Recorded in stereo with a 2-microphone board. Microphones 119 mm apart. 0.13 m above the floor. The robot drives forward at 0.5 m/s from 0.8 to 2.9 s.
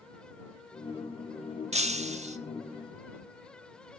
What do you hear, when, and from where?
1.7 s breaking glass: 70° right (ahead or behind), 1.1 m